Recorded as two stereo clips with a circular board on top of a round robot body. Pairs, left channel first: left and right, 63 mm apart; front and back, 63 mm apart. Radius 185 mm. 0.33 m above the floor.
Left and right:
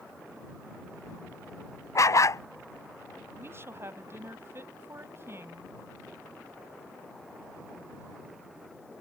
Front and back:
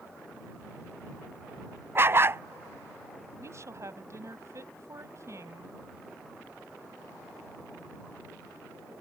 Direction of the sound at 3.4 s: 140° right.